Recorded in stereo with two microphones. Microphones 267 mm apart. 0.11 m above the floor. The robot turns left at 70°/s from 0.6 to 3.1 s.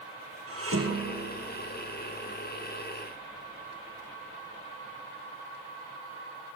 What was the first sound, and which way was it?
Dishes clattering, 60° right (ahead or behind).